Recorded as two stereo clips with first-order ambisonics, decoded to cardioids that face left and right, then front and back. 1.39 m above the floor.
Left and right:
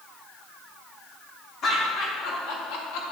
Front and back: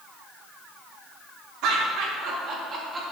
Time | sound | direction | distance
1.6 | laughter | 145° left | 3 m